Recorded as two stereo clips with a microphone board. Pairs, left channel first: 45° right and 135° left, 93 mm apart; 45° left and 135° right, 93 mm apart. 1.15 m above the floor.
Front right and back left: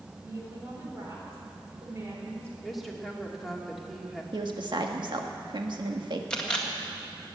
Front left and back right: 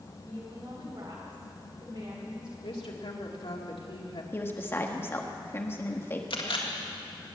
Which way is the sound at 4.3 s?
110° left.